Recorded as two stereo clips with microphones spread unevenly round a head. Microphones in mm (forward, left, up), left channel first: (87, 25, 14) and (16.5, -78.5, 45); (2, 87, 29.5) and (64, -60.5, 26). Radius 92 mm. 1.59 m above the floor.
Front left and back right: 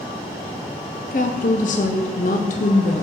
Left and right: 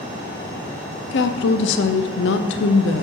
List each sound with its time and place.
1.1 s a woman speaking: 110° left, 0.5 m